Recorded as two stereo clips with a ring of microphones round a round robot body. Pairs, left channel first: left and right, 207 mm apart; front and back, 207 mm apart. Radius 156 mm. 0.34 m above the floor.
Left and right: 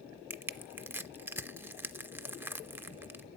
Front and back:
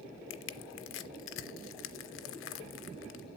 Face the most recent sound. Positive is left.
turn(degrees=-10)